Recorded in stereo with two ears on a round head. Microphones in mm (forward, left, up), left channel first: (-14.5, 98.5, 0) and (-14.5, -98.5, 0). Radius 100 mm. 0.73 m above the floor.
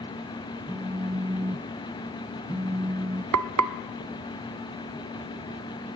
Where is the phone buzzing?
15° right (ahead or behind), 1.0 m.